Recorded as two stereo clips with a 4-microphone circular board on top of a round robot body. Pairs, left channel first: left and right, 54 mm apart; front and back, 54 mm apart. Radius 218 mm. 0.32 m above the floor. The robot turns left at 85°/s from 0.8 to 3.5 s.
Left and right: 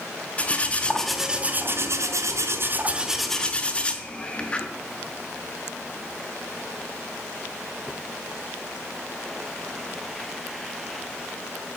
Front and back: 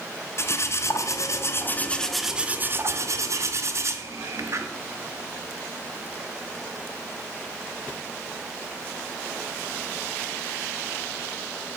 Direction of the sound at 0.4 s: 25° left.